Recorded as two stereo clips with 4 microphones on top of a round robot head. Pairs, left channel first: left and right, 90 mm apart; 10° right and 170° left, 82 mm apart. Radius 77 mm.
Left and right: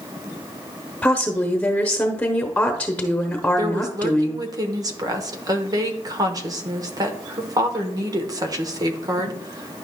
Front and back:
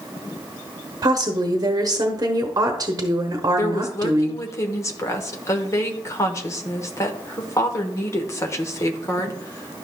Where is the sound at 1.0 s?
165° left, 1.0 m.